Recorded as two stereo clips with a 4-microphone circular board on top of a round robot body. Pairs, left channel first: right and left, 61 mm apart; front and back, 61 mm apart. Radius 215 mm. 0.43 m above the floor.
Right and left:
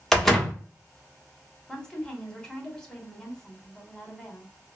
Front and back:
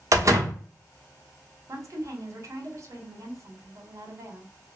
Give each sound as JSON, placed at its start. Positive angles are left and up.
{"t": 0.1, "sound": "a door slam", "azimuth_deg": -175, "distance_m": 1.0}
{"t": 1.7, "sound": "a woman speaking", "azimuth_deg": -165, "distance_m": 1.3}